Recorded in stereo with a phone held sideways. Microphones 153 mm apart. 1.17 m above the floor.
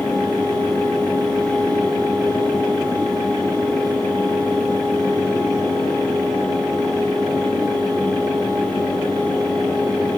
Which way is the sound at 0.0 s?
25° left (ahead or behind).